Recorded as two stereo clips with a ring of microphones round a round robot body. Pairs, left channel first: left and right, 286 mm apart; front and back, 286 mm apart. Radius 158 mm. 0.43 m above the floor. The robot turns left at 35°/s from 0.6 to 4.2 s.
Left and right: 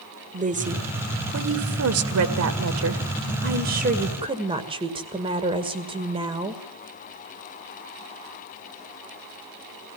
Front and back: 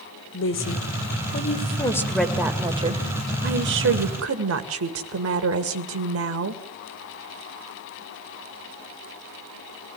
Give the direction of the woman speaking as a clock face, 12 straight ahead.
1 o'clock.